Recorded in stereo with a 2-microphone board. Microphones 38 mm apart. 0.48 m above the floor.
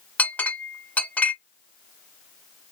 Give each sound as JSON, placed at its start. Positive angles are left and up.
{"t": 0.2, "sound": "a clink", "side_deg": 40, "distance_m": 1.0}